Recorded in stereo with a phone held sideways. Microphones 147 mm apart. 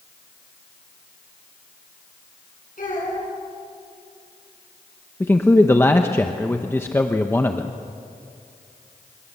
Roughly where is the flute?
I don't hear a flute.